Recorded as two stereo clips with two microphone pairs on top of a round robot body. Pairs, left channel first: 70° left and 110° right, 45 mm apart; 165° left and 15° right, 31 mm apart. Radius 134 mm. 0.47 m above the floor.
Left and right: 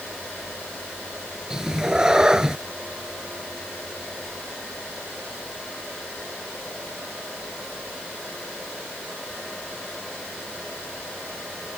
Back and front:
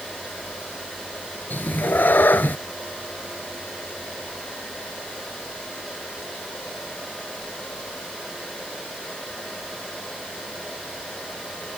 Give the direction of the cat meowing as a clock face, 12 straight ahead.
6 o'clock.